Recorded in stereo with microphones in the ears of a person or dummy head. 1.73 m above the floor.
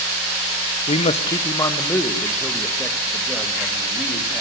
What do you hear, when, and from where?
0.9 s a man speaking: 30° left (ahead or behind), 1.2 m; by 4.4 s centre (ahead or behind), 4 m